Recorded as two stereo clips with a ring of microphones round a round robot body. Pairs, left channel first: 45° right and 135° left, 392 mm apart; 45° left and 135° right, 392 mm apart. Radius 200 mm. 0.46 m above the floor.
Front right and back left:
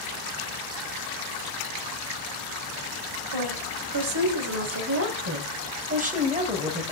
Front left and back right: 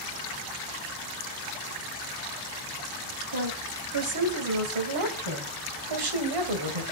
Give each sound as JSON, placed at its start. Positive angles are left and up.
{"t": 3.3, "sound": "a woman speaking", "azimuth_deg": 175, "distance_m": 3.0}